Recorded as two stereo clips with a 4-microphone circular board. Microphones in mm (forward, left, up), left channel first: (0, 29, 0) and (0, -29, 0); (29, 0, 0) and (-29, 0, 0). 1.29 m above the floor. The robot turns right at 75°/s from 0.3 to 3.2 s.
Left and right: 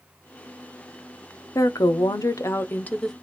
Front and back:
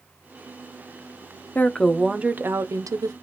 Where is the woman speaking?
60° left, 0.5 m; by 3.1 s 175° left, 0.5 m.